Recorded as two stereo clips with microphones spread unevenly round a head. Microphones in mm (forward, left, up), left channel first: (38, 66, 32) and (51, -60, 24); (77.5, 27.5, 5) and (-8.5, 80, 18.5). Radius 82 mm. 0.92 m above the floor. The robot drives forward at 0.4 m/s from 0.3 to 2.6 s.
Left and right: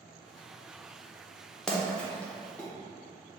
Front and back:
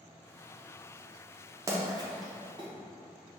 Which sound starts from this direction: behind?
A splash, at 1.7 s.